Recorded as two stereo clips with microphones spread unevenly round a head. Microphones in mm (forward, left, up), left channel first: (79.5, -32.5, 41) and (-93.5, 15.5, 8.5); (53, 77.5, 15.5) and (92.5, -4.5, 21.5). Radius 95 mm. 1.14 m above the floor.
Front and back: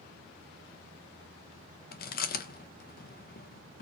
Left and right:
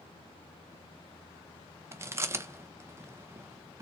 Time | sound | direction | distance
1.9 | chewing | 15° right | 0.7 m